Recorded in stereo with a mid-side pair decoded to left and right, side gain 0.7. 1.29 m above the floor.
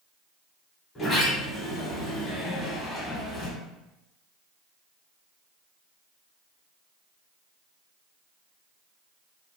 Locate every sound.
0.9 s a sliding door: 20° left, 1.2 m